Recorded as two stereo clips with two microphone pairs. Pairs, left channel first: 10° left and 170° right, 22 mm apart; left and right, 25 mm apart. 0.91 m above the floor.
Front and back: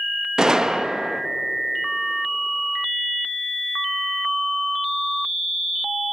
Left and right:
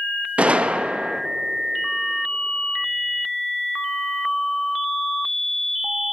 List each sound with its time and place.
0.4 s a gunshot: 110° right, 0.8 m